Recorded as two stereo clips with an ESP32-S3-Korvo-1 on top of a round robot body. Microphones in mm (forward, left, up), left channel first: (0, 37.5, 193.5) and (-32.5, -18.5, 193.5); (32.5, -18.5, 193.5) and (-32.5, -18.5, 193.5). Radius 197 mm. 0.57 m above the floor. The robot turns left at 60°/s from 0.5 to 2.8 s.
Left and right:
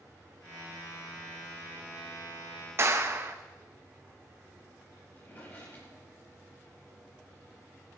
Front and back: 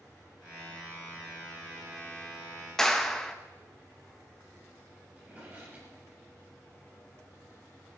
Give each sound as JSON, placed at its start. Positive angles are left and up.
{"t": 2.8, "sound": "a clap", "azimuth_deg": -80, "distance_m": 1.8}
{"t": 5.2, "sound": "a drawer", "azimuth_deg": 115, "distance_m": 5.0}